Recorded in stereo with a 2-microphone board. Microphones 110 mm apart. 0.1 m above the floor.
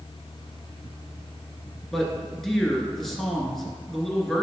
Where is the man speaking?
5° left (ahead or behind), 1.1 m.